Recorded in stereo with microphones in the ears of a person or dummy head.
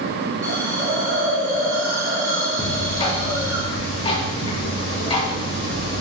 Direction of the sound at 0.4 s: 20° right (ahead or behind).